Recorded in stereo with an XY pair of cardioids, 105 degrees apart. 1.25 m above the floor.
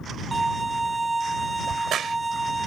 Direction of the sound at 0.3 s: 15° right.